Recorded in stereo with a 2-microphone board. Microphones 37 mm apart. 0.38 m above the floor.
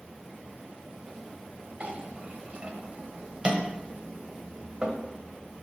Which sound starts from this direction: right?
A clink, at 1.8 s.